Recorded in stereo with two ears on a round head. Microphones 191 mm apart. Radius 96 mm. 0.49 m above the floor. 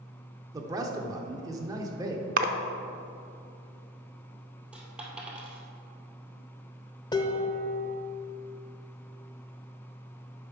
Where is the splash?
40° right (ahead or behind), 0.6 m.